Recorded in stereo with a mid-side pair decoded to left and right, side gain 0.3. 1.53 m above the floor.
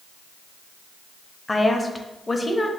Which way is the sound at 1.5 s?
25° left.